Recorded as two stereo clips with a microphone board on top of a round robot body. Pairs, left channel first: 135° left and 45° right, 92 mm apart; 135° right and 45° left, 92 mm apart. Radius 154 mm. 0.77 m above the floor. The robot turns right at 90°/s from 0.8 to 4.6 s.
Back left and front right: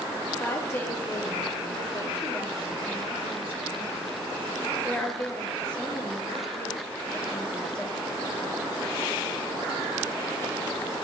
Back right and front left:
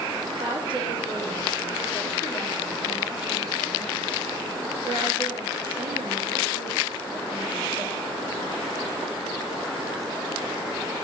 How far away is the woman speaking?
About 2.5 m.